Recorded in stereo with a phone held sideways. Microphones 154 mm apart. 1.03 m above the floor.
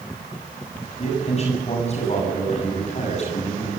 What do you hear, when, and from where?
1.0 s a man speaking: 45° left (ahead or behind), 7.5 m